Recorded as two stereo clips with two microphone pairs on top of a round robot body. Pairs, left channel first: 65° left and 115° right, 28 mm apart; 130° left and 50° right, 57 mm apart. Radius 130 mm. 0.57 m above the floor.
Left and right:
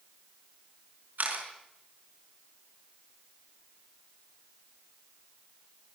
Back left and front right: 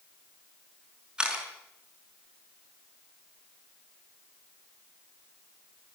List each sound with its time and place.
1.2 s a camera shutter: 120° right, 5.5 m